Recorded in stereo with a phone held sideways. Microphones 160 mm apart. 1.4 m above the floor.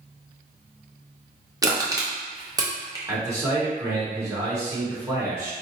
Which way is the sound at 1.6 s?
20° right (ahead or behind).